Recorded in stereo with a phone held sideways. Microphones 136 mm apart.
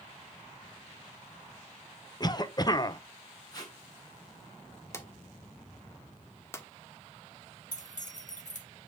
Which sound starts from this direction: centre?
A drawer, at 4.9 s.